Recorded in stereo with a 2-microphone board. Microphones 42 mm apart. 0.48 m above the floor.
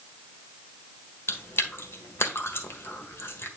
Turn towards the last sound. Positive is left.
turn(degrees=65)  # may be behind; listen again after turning